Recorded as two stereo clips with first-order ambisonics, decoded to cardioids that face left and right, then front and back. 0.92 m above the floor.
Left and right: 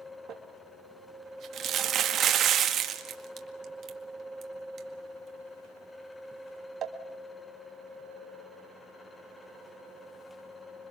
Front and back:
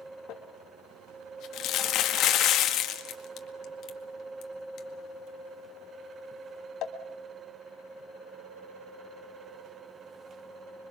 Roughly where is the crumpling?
Ahead right.